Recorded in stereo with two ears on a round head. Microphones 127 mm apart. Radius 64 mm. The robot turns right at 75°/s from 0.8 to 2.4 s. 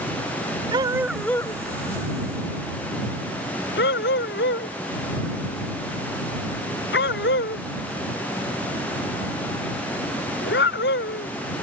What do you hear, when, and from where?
0.7 s a dog barking: 30° right (ahead or behind); by 11.3 s 85° left